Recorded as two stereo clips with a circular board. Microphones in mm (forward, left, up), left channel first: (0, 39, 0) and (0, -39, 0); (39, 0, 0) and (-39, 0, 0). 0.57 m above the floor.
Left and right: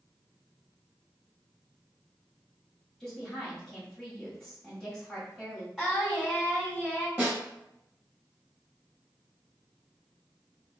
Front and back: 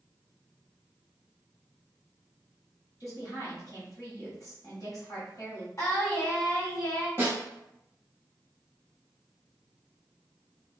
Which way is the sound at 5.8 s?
10° right.